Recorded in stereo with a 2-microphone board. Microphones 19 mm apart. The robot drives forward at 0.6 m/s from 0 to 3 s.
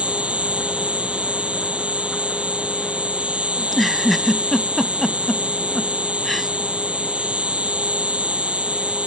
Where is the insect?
85° right; by 9.1 s 80° right.